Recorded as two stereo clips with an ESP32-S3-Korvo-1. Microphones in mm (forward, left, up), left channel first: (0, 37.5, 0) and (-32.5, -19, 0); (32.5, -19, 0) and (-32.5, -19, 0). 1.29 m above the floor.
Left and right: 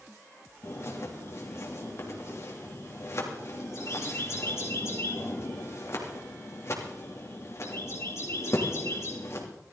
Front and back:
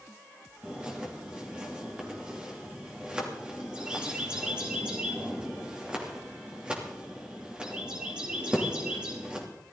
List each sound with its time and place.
0.6 s a bird: 105° left, 3 m